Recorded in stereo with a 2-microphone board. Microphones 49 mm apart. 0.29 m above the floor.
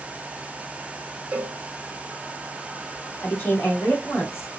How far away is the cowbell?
About 1.4 m.